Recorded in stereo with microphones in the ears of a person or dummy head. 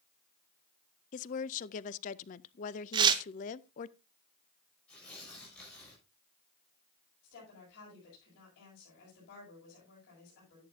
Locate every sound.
1.1 s a woman speaking: 35° left (ahead or behind), 0.5 m
2.9 s tearing paper: 25° right (ahead or behind), 0.9 m
4.9 s tearing paper: 5° left (ahead or behind), 6.5 m
7.2 s a woman speaking: 60° left (ahead or behind), 6.5 m